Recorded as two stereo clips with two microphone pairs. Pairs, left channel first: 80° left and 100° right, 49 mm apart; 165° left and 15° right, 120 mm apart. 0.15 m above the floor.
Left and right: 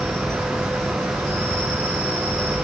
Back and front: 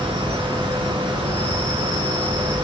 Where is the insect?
90° right, 0.9 m.